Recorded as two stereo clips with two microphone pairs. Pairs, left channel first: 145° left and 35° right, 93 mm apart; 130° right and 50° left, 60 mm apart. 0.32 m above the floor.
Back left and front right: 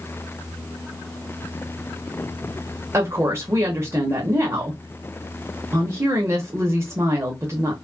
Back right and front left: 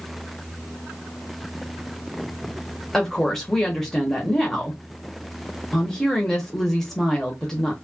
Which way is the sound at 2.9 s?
50° right.